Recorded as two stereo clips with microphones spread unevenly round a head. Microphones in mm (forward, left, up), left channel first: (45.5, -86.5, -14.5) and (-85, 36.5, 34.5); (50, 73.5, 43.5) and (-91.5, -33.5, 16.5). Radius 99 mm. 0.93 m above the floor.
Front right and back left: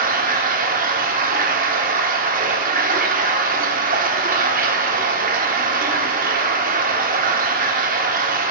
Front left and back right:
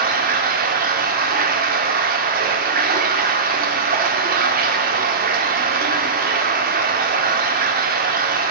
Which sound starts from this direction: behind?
Running water, at 0.0 s.